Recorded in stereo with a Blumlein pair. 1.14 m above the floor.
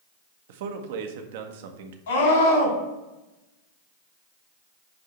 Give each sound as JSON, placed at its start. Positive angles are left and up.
{"t": 0.5, "sound": "a man speaking", "azimuth_deg": -55, "distance_m": 1.0}
{"t": 2.1, "sound": "a scream", "azimuth_deg": 65, "distance_m": 4.0}